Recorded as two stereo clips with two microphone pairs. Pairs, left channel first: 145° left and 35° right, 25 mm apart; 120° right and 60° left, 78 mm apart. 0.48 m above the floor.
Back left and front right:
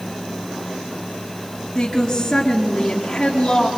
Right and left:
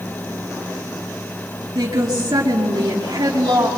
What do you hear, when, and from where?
1.8 s a woman speaking: 75° left, 6 m